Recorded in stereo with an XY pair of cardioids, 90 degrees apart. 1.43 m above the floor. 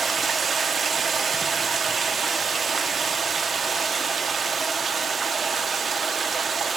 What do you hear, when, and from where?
0.0 s running water: 45° right, 1.0 m